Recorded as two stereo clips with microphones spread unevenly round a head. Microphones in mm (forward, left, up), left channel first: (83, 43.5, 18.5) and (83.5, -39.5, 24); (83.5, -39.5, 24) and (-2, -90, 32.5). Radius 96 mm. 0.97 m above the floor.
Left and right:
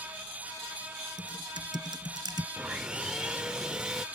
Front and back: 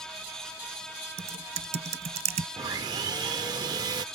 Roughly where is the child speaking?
No child speaking in this recording.